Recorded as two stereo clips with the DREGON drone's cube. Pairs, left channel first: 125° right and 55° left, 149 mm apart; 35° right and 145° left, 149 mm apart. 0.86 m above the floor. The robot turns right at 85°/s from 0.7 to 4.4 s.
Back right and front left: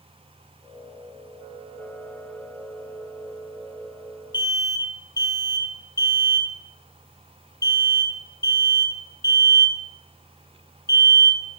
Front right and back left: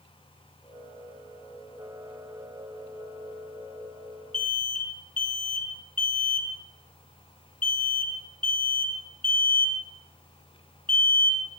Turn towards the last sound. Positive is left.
turn(degrees=-60)